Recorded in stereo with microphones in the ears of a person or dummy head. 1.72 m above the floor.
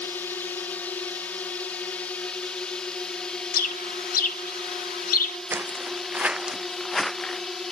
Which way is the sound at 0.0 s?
15° left (ahead or behind).